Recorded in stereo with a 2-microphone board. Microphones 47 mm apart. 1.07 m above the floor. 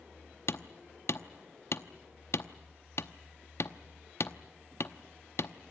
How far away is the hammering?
About 0.8 m.